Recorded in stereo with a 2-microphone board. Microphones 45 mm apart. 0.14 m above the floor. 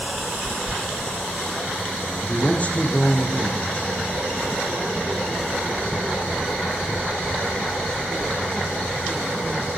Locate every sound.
2.2 s a man speaking: 30° left (ahead or behind), 6.5 m